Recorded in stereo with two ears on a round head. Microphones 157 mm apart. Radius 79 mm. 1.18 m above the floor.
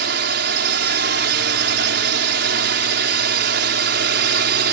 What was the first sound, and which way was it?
A drone, 60° right (ahead or behind).